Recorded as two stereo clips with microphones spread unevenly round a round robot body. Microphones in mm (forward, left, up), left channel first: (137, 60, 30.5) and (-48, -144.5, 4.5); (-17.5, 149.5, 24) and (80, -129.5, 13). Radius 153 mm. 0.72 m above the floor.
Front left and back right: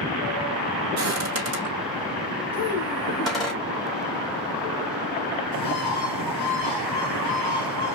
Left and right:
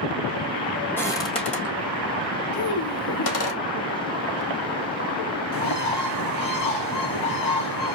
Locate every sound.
1.0 s footsteps: 170° right, 1.4 m; by 3.5 s 135° left, 2 m
2.5 s a child speaking: 100° left, 4 m
5.5 s a bird: 100° left, 4.5 m